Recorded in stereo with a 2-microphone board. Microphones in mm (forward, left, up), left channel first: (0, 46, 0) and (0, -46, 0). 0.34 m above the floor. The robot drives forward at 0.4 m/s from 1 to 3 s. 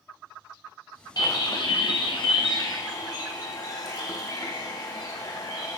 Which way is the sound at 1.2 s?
45° left (ahead or behind).